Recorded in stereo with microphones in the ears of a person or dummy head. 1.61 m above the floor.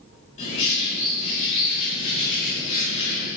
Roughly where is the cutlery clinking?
No cutlery clinking in this recording.